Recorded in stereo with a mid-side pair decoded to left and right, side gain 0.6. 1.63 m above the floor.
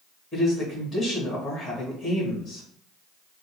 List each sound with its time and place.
0.3 s a man speaking: 30° left, 1.8 m